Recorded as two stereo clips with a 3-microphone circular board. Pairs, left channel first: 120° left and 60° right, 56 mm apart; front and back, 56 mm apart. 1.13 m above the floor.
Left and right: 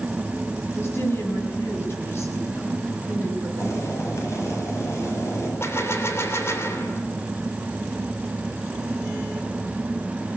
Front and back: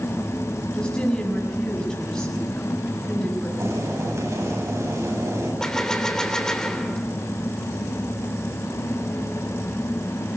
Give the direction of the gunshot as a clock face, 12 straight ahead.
9 o'clock.